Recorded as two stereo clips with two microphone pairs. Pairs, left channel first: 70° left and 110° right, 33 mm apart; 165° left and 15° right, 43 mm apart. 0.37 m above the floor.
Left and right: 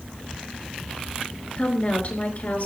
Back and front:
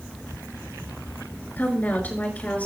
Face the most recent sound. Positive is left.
turn(degrees=110)